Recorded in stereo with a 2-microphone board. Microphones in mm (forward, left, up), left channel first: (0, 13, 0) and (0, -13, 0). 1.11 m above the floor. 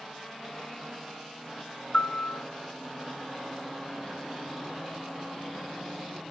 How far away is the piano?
About 0.8 m.